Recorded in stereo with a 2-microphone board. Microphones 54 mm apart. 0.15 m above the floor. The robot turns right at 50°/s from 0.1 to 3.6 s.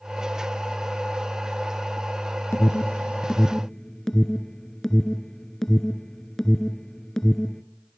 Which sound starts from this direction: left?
An alarm, at 2.5 s.